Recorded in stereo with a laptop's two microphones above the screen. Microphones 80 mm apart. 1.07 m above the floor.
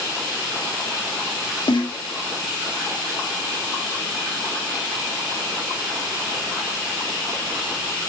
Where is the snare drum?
75° left (ahead or behind), 1.0 m.